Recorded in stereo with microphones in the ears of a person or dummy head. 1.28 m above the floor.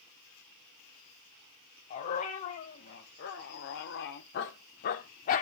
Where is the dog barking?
45° left (ahead or behind), 2.5 m.